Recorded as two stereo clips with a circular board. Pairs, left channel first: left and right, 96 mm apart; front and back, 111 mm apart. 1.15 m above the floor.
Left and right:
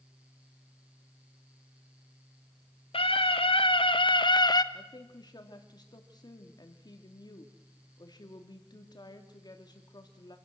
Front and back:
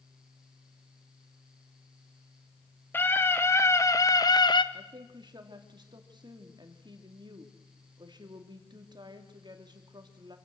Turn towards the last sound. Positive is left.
turn(degrees=130)